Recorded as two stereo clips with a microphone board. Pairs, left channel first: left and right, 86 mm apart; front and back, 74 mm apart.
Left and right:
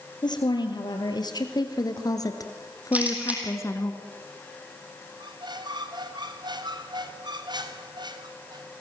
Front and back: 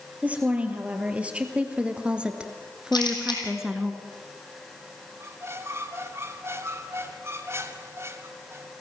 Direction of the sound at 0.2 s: 110° left.